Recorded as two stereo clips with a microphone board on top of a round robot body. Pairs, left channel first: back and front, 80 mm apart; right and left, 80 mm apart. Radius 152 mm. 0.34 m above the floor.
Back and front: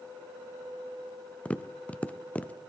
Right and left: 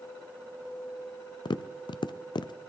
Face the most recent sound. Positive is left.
turn(degrees=-105)